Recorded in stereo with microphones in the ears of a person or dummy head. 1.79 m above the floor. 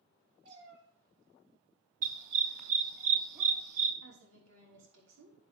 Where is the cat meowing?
75° right (ahead or behind), 7.5 m; by 3.0 s 65° right (ahead or behind), 6 m.